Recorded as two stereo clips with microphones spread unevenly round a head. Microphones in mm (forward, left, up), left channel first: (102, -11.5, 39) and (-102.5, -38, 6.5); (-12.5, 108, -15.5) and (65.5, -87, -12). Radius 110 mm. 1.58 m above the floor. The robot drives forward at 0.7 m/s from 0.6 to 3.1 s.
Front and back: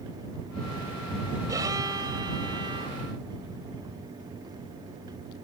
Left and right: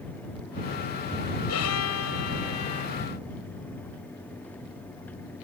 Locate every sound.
1.5 s a violin: 110° left; by 3.0 s 115° left